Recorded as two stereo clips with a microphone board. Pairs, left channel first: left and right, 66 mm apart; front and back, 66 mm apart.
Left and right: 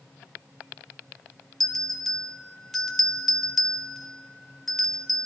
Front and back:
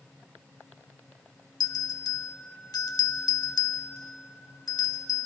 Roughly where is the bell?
Ahead.